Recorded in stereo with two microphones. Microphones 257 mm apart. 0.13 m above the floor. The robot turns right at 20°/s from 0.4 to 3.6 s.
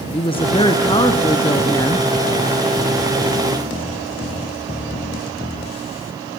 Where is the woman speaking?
20° left (ahead or behind), 1.5 m; by 2.1 s 10° left (ahead or behind), 1.5 m.